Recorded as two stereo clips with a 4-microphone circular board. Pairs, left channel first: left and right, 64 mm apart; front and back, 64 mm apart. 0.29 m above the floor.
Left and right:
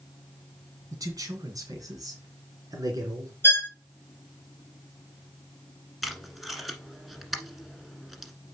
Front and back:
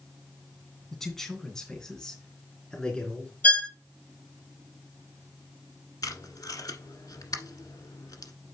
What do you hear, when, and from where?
0.9 s a man speaking: 85° right, 2 m; by 3.3 s 75° right, 3.5 m
3.4 s a violin: 55° left, 1.1 m
6.0 s tape being pulled: straight ahead, 1.4 m